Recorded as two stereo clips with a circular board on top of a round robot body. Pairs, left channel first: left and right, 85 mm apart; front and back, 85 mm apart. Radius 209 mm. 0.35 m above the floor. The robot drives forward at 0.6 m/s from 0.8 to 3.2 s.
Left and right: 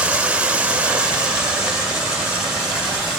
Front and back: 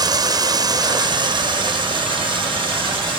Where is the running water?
160° right, 0.9 m; by 3.2 s 175° right, 2 m.